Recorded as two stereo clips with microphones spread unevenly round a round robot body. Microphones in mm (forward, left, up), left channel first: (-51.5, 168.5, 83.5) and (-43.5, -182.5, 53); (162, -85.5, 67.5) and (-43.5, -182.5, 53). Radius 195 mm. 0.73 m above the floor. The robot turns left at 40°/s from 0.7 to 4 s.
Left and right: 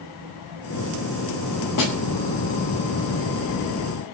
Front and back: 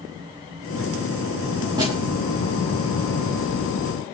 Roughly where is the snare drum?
Behind left.